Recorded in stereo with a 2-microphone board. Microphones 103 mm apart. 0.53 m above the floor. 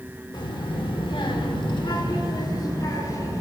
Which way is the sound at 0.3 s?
45° left (ahead or behind).